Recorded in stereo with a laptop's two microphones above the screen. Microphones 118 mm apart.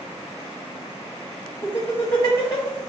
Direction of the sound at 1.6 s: 35° left (ahead or behind).